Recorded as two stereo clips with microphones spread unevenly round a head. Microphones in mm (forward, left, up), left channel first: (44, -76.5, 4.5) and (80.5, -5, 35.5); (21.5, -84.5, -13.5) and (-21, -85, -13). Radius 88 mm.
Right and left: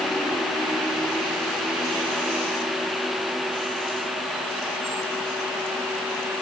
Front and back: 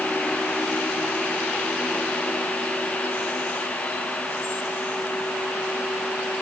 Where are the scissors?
I don't hear scissors.